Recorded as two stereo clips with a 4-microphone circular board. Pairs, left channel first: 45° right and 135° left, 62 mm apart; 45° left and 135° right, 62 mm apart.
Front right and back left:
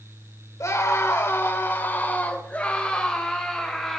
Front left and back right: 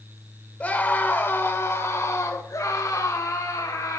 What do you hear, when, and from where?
0.6 s a scream: 20° right, 3 m; by 4.0 s 40° left, 4 m